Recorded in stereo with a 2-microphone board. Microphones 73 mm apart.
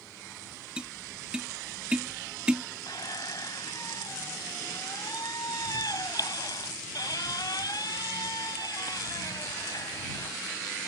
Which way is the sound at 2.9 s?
65° left (ahead or behind).